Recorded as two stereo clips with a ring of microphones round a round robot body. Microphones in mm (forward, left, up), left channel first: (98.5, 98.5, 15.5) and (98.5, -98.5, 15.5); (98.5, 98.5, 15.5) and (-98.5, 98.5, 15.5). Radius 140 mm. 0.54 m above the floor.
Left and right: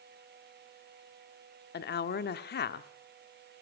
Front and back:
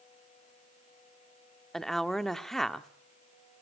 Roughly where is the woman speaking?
Left.